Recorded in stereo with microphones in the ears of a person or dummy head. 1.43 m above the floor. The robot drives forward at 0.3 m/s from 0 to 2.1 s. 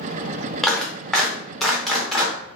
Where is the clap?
Centre (ahead or behind), 0.7 m.